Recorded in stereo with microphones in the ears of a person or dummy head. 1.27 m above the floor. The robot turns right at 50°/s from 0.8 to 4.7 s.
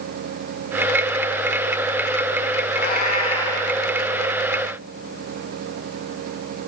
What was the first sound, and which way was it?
A cat meowing, 120° left.